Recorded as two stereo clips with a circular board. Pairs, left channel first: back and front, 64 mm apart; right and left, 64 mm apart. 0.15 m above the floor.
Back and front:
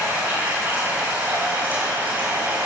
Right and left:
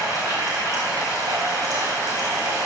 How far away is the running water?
About 5 m.